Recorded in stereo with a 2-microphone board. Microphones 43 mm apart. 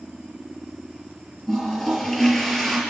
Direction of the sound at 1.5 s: 10° left (ahead or behind).